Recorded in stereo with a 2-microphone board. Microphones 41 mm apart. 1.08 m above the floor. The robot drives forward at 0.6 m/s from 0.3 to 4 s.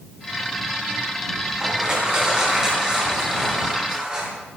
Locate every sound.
1.6 s crushing: 20° right (ahead or behind), 4 m; by 4.3 s 15° right (ahead or behind), 5.5 m